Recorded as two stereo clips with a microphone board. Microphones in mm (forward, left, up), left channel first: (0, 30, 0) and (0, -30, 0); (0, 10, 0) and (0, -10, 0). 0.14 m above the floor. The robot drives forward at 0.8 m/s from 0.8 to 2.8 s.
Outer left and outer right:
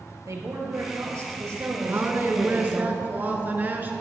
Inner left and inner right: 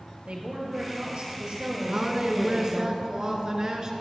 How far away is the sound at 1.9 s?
About 1.4 m.